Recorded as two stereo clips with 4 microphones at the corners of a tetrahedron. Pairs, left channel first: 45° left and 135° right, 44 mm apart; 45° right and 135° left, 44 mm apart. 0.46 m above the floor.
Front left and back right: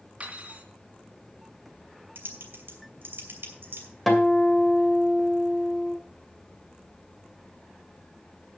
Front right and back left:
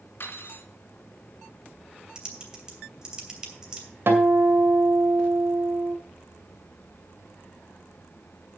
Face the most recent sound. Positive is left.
turn(degrees=130)